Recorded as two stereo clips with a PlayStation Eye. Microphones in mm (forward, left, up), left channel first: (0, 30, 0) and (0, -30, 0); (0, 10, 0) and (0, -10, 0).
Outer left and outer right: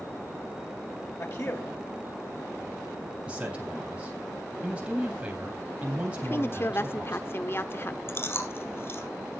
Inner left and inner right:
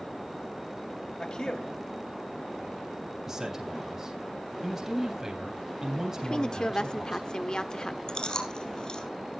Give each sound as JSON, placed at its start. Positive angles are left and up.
{"t": 1.2, "sound": "a man speaking", "side_deg": 50, "distance_m": 3.0}
{"t": 3.3, "sound": "a man speaking", "side_deg": -20, "distance_m": 3.0}
{"t": 6.2, "sound": "a woman speaking", "side_deg": 40, "distance_m": 1.1}
{"t": 8.1, "sound": "chewing", "side_deg": 45, "distance_m": 3.5}